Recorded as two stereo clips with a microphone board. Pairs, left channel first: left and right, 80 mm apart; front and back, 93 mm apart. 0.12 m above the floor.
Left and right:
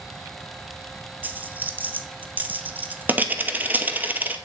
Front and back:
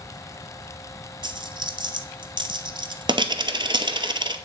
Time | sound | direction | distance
1.2 | a dropped coin | 155° right | 0.6 m